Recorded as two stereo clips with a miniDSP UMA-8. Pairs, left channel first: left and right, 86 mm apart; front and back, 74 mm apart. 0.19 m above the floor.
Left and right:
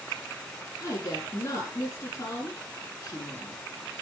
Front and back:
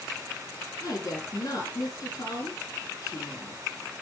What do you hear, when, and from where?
0.8 s a woman speaking: 40° left, 6 m